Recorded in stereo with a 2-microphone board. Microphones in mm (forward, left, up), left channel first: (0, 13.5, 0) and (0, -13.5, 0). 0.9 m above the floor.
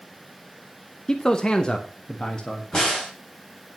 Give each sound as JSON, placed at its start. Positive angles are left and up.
{"t": 1.1, "sound": "a man speaking", "side_deg": 25, "distance_m": 0.8}
{"t": 2.7, "sound": "a crack", "side_deg": 25, "distance_m": 4.0}